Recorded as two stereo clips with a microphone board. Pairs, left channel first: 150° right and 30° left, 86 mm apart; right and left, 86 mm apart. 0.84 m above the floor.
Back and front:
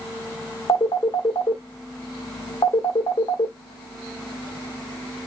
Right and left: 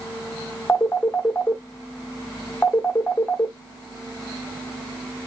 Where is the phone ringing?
155° right, 0.9 m.